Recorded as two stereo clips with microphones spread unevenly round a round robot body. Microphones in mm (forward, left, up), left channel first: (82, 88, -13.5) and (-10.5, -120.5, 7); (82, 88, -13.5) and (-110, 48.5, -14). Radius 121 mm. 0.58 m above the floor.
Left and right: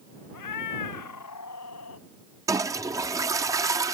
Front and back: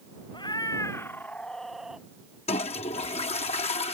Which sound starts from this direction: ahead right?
A toilet flushing, at 2.5 s.